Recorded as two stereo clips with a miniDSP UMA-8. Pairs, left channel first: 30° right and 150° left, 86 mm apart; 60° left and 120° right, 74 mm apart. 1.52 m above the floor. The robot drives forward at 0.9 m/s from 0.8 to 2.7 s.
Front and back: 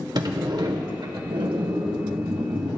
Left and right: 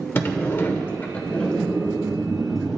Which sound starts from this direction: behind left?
A sliding door, at 0.1 s.